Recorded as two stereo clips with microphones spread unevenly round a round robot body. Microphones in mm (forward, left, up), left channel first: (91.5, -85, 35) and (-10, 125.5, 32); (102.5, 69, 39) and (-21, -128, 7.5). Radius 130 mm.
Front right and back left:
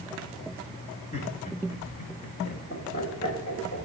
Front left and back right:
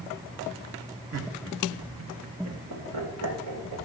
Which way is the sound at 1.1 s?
130° right.